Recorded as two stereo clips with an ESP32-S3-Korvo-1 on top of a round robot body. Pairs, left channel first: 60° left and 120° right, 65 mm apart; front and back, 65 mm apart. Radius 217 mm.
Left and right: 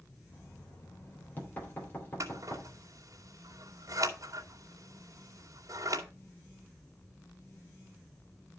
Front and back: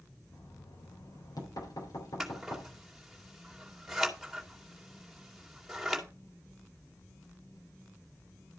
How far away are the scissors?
About 2.5 m.